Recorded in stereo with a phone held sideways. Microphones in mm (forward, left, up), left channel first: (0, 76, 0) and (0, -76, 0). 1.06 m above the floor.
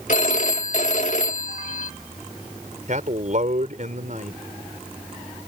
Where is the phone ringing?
55° left (ahead or behind).